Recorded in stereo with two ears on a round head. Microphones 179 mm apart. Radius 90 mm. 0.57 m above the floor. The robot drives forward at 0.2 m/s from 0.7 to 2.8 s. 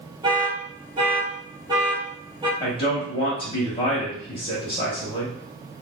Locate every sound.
0.2 s an alarm: 20° right (ahead or behind), 0.9 m; by 2.5 s 25° right (ahead or behind), 0.8 m
2.6 s a man speaking: 25° left (ahead or behind), 0.9 m